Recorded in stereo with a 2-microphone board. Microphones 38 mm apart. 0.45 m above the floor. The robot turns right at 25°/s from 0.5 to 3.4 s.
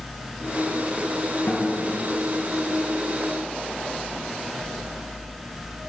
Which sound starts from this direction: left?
A guitar, at 1.5 s.